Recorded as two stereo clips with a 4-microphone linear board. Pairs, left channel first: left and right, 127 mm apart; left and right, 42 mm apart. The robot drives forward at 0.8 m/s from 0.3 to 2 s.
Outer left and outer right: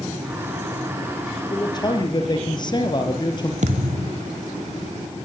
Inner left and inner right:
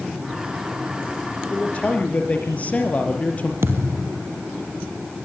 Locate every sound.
1.5 s a man speaking: 35° left (ahead or behind), 5 m
3.6 s a thud: 70° right (ahead or behind), 2.5 m